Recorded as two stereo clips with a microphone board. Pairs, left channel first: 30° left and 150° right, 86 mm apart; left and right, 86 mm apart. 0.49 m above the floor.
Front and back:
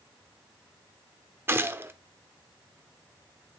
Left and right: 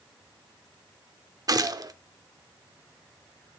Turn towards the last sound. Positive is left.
turn(degrees=-100)